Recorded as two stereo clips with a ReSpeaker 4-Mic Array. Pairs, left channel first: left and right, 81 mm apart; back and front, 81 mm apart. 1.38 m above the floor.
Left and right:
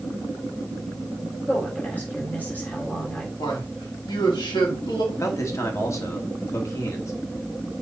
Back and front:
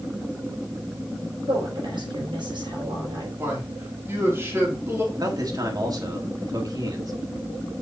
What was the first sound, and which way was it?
A woman speaking, 20° left.